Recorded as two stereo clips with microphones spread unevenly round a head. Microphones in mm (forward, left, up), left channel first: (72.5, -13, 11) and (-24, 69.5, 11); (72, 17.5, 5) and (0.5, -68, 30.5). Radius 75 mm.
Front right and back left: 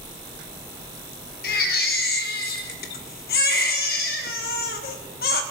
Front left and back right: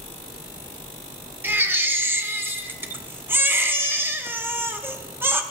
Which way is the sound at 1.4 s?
60° right.